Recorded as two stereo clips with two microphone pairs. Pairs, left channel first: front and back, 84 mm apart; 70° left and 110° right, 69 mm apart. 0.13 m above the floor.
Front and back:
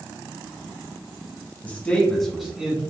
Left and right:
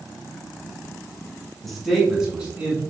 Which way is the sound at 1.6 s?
10° right.